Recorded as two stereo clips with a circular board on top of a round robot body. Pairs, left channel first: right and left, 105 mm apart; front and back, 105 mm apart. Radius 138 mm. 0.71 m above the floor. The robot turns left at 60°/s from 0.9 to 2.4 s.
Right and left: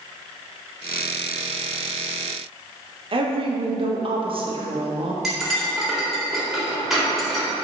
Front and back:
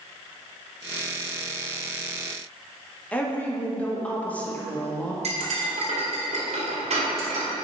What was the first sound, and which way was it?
A woman speaking, 75° left.